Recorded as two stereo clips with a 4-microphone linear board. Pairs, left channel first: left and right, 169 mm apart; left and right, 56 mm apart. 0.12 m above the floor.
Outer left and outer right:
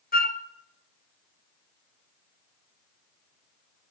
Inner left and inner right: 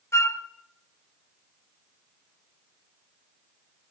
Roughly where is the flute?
Left.